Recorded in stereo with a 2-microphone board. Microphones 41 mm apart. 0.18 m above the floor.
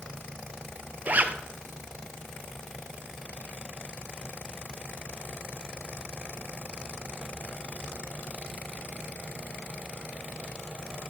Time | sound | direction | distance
1.1 | a zipper | 40° right (ahead or behind) | 0.9 m